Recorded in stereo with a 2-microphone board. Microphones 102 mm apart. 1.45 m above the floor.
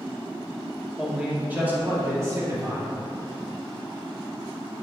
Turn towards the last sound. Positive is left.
turn(degrees=-40)  # may be behind; listen again after turning